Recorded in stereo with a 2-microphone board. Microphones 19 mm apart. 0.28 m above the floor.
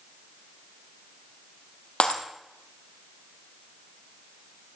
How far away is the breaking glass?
About 2.5 m.